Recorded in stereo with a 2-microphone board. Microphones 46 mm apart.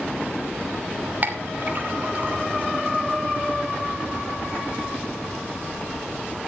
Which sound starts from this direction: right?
A clink, at 1.2 s.